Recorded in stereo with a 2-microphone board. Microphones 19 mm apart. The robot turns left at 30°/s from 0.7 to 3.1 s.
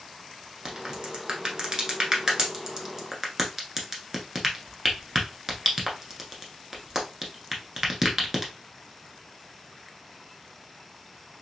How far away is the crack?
About 0.9 m.